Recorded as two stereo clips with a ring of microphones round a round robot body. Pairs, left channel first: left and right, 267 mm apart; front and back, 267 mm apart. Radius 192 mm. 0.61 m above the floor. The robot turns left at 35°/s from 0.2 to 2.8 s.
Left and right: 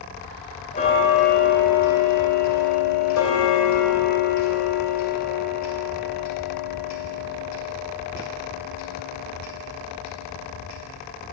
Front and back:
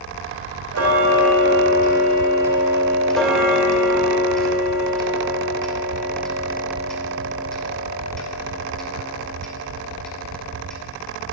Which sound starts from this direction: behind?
Ticking, at 0.7 s.